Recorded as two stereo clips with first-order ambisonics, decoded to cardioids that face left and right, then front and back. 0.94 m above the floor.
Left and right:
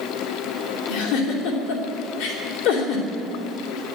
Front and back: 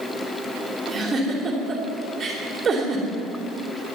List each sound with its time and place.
0.9 s a giggle: 105° left, 3 m